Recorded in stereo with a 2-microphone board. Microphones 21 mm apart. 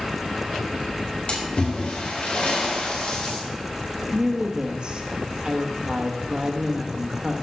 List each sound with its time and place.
1.3 s a splash: 55° left (ahead or behind), 5 m
4.1 s a woman speaking: 45° right (ahead or behind), 1.6 m